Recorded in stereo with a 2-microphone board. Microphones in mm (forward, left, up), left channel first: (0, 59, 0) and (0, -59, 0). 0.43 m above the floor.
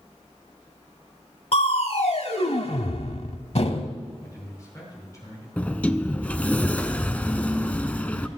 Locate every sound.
1.5 s crushing: 60° left (ahead or behind), 0.8 m
4.2 s a man speaking: 30° left (ahead or behind), 7 m
5.6 s a sliding door: 15° left (ahead or behind), 0.6 m